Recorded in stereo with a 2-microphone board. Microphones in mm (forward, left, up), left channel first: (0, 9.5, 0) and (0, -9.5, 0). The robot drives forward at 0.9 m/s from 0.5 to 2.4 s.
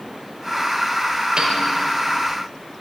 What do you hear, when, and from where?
1.4 s a piano: 75° right (ahead or behind), 2.5 m